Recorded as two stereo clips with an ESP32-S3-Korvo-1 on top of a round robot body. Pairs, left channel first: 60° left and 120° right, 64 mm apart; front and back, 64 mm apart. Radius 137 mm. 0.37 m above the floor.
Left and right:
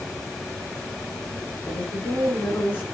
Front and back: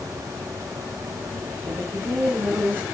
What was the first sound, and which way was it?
A woman speaking, 115° left.